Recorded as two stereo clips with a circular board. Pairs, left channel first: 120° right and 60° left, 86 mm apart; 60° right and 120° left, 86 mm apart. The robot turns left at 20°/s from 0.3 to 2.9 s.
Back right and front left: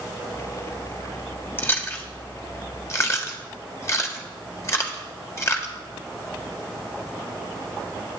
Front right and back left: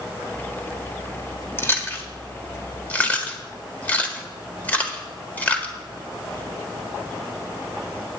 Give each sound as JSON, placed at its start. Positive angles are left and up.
{"t": 1.6, "sound": "chewing", "azimuth_deg": -85, "distance_m": 1.5}